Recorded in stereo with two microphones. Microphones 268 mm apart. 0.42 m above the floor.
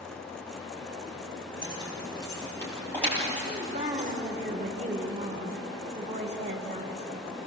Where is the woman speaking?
25° right (ahead or behind), 4 m.